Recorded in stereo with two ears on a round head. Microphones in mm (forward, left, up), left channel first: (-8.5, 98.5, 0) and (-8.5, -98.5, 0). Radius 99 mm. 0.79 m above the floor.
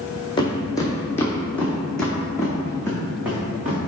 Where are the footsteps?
20° left (ahead or behind), 1.6 m; by 3.8 s 10° right (ahead or behind), 3 m.